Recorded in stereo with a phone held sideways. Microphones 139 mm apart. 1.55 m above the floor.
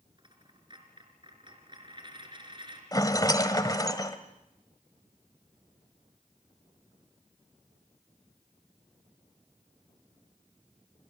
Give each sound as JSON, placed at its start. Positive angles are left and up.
{"t": 0.2, "sound": "a dropped coin", "side_deg": -35, "distance_m": 4.5}
{"t": 2.9, "sound": "a rattle", "side_deg": 25, "distance_m": 1.7}